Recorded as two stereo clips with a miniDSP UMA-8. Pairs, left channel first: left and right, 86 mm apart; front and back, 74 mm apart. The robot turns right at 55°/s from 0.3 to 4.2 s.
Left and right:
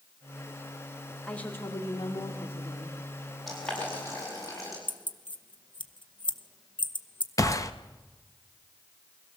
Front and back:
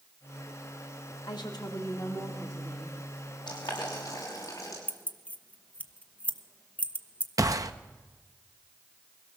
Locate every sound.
1.2 s a woman speaking: 10° left, 2 m; by 3.0 s 105° left, 2 m
3.5 s boiling: straight ahead, 7.5 m; by 4.8 s 40° left, 7.5 m
4.9 s keys jangling: 70° left, 1.0 m
7.4 s a gunshot: 145° left, 1.0 m